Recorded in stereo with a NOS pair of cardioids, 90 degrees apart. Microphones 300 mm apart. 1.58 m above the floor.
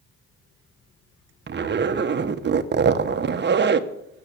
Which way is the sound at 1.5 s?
35° right.